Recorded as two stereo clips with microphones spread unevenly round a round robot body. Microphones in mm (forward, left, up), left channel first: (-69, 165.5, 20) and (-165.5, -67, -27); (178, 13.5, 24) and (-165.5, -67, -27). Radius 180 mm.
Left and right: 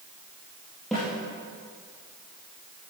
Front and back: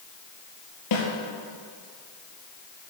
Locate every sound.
0.9 s a snare drum: 20° right, 4 m